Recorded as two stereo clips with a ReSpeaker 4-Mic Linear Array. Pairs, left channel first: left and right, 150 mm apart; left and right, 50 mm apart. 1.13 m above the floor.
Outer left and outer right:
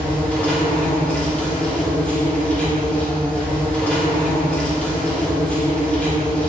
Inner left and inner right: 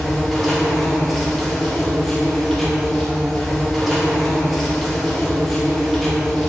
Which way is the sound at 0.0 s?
5° left (ahead or behind).